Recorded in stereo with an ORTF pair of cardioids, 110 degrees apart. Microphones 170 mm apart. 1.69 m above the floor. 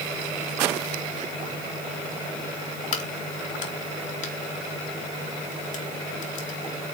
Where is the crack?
50° left, 3 m.